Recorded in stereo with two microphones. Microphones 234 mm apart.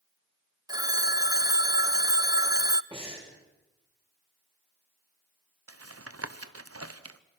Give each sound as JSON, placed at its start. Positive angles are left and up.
{"t": 0.7, "sound": "a phone ringing", "side_deg": -15, "distance_m": 0.5}
{"t": 2.9, "sound": "breathing", "side_deg": -25, "distance_m": 6.0}
{"t": 5.7, "sound": "tapping", "side_deg": -80, "distance_m": 0.9}